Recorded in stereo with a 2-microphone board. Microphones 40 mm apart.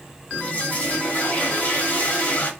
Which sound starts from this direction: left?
A toilet flushing, at 0.3 s.